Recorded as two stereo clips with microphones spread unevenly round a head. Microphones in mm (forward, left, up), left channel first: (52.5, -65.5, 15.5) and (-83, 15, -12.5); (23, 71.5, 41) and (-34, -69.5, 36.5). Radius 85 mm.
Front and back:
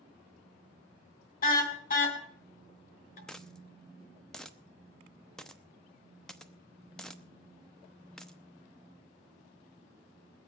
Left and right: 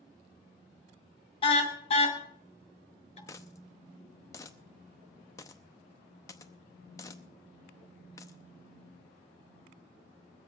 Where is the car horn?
10° left, 2.5 m; by 3.2 s 15° left, 3.5 m.